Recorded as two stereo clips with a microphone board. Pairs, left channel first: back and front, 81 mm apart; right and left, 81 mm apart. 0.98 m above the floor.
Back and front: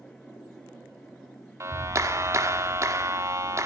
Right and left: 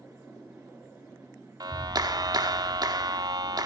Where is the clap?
55° left, 1.6 m.